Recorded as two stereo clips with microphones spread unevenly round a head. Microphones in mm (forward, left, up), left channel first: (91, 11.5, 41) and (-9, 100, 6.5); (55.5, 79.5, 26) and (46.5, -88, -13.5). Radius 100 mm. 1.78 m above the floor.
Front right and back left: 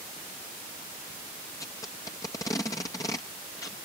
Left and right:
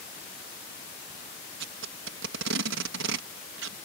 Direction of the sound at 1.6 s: 115° right.